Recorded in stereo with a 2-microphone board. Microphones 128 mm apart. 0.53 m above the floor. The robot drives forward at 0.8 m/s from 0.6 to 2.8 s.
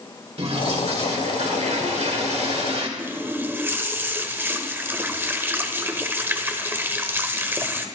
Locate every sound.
0.4 s a toilet flushing: 55° right (ahead or behind), 2 m; by 2.9 s 50° right (ahead or behind), 2 m
3.0 s a running tap: 20° right (ahead or behind), 1.2 m